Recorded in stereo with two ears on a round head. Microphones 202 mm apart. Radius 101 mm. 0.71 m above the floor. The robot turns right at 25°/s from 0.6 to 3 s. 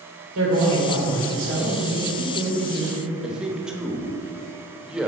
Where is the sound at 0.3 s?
85° right, 2.5 m; by 3.1 s 25° right, 2.5 m.